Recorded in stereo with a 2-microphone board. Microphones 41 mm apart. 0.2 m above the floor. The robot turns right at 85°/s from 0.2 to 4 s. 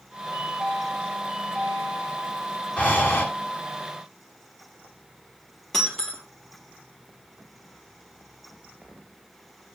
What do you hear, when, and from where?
0.3 s a chime: 135° right, 6.5 m; by 2.4 s 40° left, 6.5 m
2.8 s breathing: 35° left, 1.5 m; by 3.2 s 80° left, 1.5 m
5.7 s breaking glass: 15° left (ahead or behind), 3 m